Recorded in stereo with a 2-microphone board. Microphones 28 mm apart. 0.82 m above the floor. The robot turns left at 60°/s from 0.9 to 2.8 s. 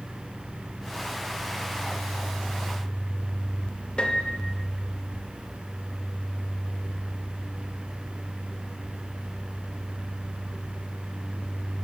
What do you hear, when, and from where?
4.0 s a piano: 35° left (ahead or behind), 1.0 m